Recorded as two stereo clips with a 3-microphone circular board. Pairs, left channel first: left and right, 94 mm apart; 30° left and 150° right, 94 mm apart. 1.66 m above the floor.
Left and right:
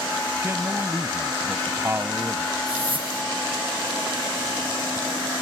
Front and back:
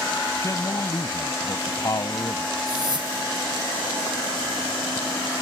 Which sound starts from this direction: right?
A whoosh, at 2.7 s.